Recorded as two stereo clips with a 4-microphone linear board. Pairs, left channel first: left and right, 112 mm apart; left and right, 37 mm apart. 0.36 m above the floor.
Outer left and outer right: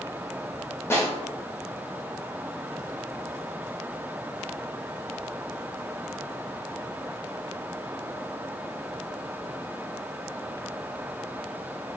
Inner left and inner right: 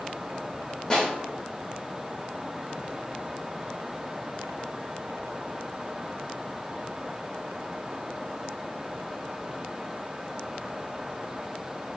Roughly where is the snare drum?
Left.